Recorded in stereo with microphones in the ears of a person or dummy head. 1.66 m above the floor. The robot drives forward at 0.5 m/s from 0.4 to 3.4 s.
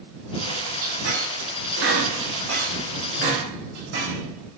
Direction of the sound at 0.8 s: 75° right (ahead or behind).